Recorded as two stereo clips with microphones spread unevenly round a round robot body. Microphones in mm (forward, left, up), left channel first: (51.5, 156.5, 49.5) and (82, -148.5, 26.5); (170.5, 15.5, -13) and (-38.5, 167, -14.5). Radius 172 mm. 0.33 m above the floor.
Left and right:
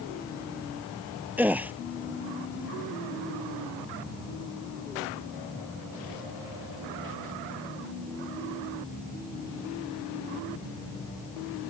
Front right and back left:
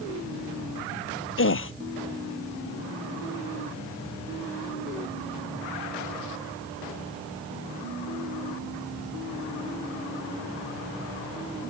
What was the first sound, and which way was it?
A gasp, straight ahead.